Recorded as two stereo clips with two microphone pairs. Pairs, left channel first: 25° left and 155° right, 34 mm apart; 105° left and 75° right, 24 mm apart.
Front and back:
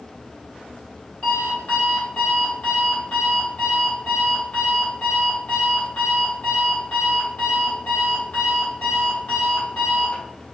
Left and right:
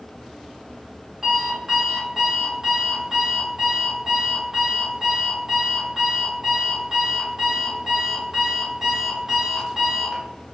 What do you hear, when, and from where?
1.2 s an alarm clock: 5° right, 1.2 m